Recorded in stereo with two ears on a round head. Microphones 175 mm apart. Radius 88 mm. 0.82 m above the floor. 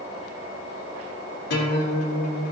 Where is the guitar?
60° left (ahead or behind), 3 m.